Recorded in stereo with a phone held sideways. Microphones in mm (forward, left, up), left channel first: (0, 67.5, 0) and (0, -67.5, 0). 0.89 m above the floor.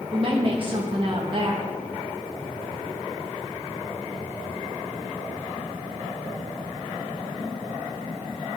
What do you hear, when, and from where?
0.1 s a woman speaking: 40° right (ahead or behind), 1.1 m